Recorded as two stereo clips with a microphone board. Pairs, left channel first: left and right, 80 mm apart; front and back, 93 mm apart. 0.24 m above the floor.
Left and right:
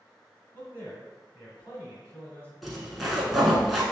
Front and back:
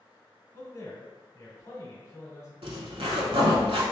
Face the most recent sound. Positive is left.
turn(degrees=180)